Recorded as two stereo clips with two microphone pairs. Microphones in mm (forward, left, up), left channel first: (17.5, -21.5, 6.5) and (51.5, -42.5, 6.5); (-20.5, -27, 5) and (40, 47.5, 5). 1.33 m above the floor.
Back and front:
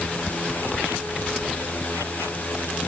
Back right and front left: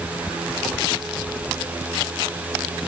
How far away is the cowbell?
No cowbell in this recording.